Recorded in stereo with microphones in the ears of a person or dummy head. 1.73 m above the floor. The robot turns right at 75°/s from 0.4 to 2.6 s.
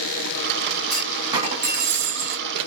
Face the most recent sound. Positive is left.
turn(degrees=-65)